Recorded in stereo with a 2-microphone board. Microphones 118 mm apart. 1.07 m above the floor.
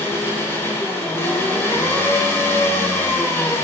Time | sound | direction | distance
0.0 | an engine running | 20° left (ahead or behind) | 7.5 m